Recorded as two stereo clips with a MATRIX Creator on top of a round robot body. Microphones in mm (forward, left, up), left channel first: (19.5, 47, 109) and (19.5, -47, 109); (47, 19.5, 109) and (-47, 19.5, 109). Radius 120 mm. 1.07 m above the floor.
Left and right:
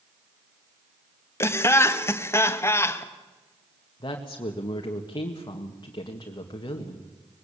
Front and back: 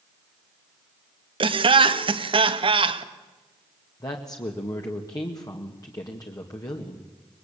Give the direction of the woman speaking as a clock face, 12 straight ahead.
10 o'clock.